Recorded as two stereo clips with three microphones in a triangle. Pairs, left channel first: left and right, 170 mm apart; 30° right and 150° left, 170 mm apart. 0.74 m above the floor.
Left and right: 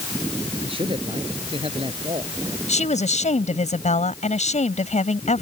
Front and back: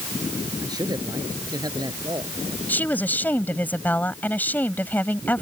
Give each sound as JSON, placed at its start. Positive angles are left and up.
{"t": 0.6, "sound": "a man speaking", "azimuth_deg": -145}
{"t": 2.7, "sound": "a woman speaking", "azimuth_deg": 50}